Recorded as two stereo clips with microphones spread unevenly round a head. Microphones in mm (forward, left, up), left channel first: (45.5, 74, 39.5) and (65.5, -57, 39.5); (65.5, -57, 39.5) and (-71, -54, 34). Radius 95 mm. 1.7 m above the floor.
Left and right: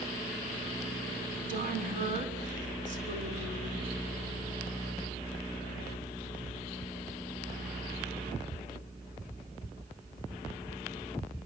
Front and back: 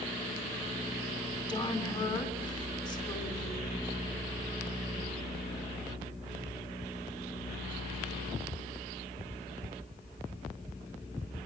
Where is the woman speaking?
60° right, 7 m.